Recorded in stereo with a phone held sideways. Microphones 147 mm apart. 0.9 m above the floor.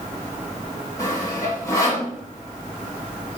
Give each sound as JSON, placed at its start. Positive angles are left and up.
{"t": 1.0, "sound": "sawing", "side_deg": 20, "distance_m": 1.5}